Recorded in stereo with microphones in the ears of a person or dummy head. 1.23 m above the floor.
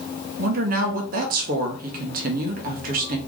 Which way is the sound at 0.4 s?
45° right (ahead or behind).